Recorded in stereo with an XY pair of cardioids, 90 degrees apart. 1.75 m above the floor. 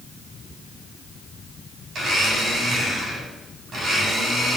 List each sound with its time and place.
1.9 s a blender: 65° right, 8.5 m